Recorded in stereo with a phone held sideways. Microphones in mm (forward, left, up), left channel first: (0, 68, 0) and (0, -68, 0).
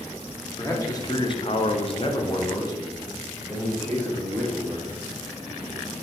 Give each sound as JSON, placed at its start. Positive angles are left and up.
{"t": 0.6, "sound": "a man speaking", "side_deg": 20, "distance_m": 1.2}